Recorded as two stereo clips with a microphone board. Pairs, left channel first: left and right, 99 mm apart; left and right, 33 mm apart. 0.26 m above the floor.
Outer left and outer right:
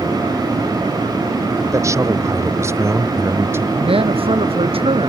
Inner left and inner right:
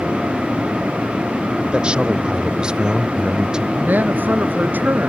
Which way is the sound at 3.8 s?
85° right.